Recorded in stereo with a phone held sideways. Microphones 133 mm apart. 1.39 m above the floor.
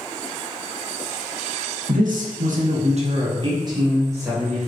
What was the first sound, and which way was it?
A man speaking, 85° right.